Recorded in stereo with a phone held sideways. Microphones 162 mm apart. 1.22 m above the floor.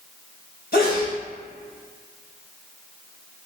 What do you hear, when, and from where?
0.7 s a sneeze: 70° left (ahead or behind), 2.0 m